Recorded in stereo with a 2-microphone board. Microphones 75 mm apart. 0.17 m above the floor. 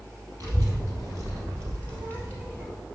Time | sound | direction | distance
0.4 | a child speaking | 55° right (ahead or behind) | 3 m